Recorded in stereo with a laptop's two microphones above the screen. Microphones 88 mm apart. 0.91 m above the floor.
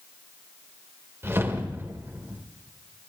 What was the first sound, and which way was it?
A whoosh, 30° right (ahead or behind).